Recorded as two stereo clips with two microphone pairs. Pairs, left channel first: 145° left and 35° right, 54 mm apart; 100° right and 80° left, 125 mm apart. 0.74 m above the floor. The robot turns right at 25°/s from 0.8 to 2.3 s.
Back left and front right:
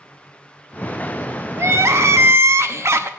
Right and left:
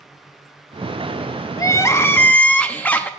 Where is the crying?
50° right, 0.6 m; by 3.1 s 30° right, 0.6 m.